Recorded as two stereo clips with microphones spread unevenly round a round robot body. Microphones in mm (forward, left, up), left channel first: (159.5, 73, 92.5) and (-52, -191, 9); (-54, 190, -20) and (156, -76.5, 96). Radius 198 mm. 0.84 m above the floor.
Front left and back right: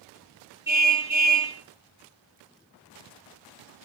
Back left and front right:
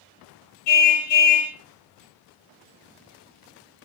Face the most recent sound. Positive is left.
turn(degrees=145)